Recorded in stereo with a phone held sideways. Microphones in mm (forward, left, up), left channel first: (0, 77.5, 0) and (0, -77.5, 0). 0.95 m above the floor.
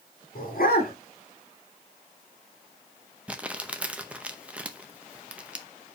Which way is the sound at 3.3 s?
10° right (ahead or behind).